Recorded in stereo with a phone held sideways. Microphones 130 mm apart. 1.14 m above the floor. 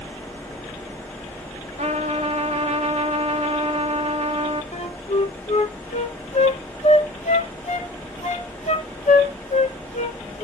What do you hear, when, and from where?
0.0 s a fan: 10° left (ahead or behind), 1.2 m
1.8 s a trumpet: 55° right (ahead or behind), 1.3 m
4.7 s a flute: 60° left (ahead or behind), 1.2 m